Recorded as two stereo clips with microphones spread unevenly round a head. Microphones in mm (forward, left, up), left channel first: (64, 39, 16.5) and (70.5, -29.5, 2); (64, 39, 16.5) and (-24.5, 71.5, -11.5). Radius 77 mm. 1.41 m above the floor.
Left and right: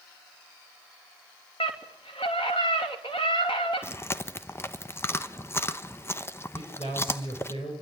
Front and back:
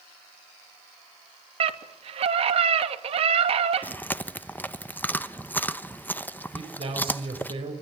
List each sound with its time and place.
1.6 s a scream: 155° left, 2.5 m
3.8 s chewing: 45° left, 1.0 m
6.5 s a man speaking: 135° left, 7 m